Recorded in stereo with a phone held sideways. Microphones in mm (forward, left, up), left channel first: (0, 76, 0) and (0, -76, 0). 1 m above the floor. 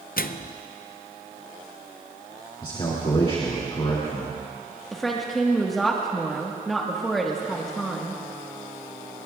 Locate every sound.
0.2 s a microwave: 70° left (ahead or behind), 0.5 m
2.6 s a man speaking: 35° left (ahead or behind), 2.5 m
4.9 s a woman speaking: centre (ahead or behind), 1.3 m